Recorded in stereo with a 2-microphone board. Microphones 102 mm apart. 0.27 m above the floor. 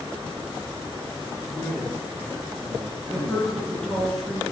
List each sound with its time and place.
1.5 s a man speaking: 25° right (ahead or behind), 5 m; by 4.1 s centre (ahead or behind), 2 m
3.1 s a woman speaking: 5° left (ahead or behind), 3.5 m